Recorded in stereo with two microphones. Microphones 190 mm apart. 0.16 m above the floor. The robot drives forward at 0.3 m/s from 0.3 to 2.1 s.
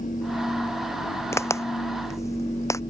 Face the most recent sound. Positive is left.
turn(degrees=15)  # may be behind; listen again after turning